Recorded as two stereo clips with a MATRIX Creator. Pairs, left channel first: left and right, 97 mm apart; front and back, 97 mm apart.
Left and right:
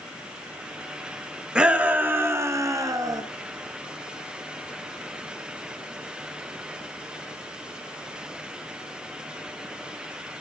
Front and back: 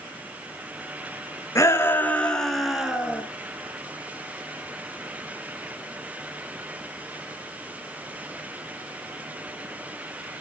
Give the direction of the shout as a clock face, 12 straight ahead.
1 o'clock.